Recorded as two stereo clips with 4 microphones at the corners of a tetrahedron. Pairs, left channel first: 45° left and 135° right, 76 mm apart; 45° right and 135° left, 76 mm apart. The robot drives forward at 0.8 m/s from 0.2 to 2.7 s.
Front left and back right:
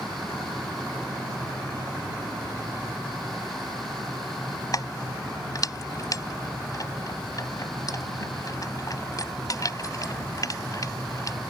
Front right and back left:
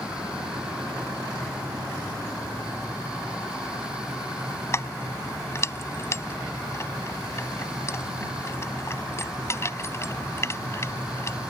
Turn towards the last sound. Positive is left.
turn(degrees=5)